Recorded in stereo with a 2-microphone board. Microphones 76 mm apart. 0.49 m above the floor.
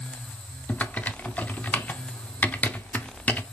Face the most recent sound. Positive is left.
turn(degrees=20)  # may be behind; listen again after turning